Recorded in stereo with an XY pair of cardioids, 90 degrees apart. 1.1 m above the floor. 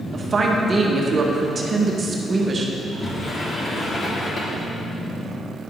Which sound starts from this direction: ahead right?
A woman speaking, at 0.1 s.